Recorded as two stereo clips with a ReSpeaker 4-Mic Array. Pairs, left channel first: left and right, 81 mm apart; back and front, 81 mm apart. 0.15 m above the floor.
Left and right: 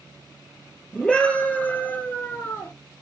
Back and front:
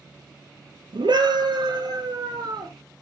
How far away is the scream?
About 3.5 m.